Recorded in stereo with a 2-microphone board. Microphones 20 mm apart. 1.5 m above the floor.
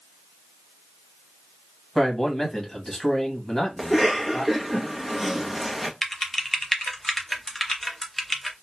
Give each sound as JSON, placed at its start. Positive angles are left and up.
{"t": 1.9, "sound": "a man speaking", "side_deg": 20, "distance_m": 1.5}
{"t": 3.8, "sound": "a cough", "side_deg": -10, "distance_m": 0.7}
{"t": 6.0, "sound": "typing on a keyboard", "side_deg": 15, "distance_m": 0.8}